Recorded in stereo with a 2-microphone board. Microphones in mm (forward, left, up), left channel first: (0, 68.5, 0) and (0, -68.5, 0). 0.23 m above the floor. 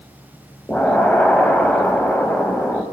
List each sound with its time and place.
0.7 s an explosion: 10° left (ahead or behind), 0.6 m